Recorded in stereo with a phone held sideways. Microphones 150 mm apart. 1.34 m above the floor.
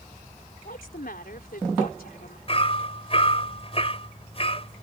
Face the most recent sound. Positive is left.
turn(degrees=40)  # may be behind; listen again after turning